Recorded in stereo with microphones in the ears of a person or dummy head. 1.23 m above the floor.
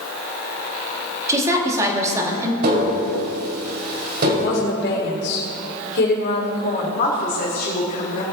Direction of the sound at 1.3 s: 20° right (ahead or behind).